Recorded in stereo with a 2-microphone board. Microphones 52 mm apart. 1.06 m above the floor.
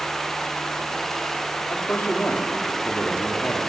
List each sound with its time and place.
1.7 s a man speaking: 35° left (ahead or behind), 3 m